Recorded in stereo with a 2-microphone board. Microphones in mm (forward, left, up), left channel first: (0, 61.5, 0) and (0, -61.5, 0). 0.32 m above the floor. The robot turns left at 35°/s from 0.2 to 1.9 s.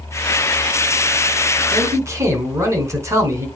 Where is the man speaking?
30° right (ahead or behind), 2.5 m; by 3.5 s 25° right (ahead or behind), 2.5 m.